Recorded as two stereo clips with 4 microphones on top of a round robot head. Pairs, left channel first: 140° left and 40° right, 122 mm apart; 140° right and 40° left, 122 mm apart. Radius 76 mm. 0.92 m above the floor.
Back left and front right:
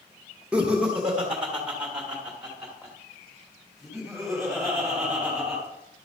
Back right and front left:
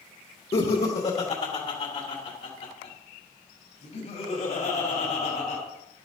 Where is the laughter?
120° right, 1.4 m; by 5.6 s 125° right, 4 m.